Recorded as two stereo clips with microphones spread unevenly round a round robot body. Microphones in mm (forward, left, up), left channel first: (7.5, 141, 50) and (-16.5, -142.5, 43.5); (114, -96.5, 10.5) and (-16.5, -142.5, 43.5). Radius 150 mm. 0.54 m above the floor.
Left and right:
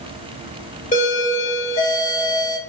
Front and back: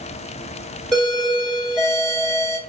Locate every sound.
0.9 s a doorbell: 75° left, 1.3 m